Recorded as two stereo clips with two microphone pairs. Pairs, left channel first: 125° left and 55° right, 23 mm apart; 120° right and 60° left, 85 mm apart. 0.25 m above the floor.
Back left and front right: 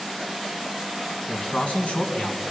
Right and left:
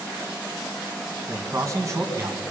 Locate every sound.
1.3 s a man speaking: 105° left, 2.5 m